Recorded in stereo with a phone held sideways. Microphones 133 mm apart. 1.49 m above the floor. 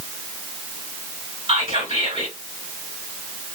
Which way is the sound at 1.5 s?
50° right (ahead or behind).